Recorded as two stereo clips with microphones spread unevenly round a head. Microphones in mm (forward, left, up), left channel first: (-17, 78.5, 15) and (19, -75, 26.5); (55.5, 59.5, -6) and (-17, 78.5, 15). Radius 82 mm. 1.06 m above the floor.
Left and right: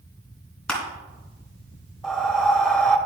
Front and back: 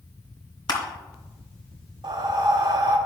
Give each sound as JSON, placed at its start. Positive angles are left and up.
{"t": 0.7, "sound": "crushing", "azimuth_deg": 15, "distance_m": 3.0}
{"t": 2.0, "sound": "breathing", "azimuth_deg": -170, "distance_m": 1.0}